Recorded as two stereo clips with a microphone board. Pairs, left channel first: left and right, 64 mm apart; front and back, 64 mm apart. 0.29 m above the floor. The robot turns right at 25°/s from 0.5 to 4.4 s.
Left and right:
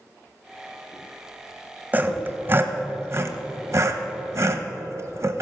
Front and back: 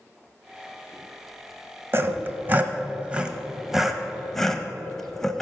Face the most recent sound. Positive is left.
turn(degrees=-80)